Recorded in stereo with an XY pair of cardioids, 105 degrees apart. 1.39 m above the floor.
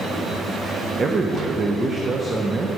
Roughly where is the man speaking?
Ahead right.